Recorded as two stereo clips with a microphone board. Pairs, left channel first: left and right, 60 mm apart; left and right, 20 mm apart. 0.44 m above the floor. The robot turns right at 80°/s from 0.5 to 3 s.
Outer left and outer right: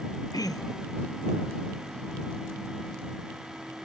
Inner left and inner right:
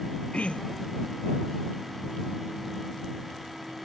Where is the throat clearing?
90° left; by 1.0 s 125° left.